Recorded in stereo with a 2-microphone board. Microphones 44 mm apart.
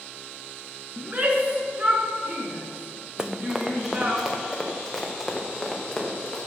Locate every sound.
1.0 s a shout: 30° right (ahead or behind), 2 m
3.2 s running footsteps: 15° right (ahead or behind), 0.8 m; by 6.4 s 5° left (ahead or behind), 3 m